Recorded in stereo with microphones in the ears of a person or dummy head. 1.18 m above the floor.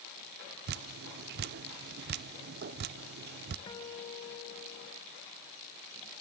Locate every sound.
0.7 s dripping: 55° right (ahead or behind), 0.5 m
3.7 s a guitar: 30° left (ahead or behind), 1.3 m